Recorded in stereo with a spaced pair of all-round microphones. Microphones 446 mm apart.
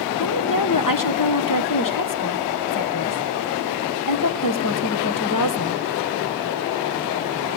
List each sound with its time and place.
0.2 s a woman speaking: 45° left (ahead or behind), 1.1 m